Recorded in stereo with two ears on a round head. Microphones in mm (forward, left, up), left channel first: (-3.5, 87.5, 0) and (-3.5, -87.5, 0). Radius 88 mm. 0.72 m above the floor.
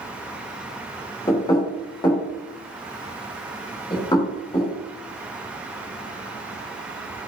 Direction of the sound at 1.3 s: 20° left (ahead or behind).